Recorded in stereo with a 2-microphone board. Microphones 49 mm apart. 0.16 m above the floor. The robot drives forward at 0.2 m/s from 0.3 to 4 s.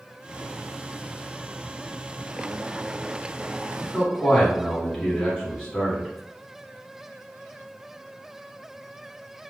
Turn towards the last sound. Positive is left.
turn(degrees=15)  # may be behind; listen again after turning